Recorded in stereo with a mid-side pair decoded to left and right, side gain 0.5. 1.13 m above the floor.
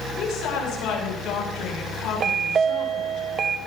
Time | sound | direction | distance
0.2 | a woman speaking | 70° left | 9 m
2.2 | a chime | 50° right | 1.4 m